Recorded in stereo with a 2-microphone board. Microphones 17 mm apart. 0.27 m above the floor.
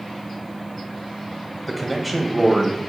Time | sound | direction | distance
1.7 | a man speaking | centre (ahead or behind) | 1.1 m